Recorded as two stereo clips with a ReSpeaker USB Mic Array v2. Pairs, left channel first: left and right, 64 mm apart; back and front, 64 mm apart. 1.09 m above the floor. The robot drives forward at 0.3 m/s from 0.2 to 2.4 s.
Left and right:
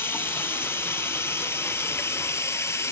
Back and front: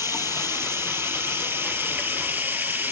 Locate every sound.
0.0 s running water: 40° left, 2.5 m; by 2.9 s 50° left, 2 m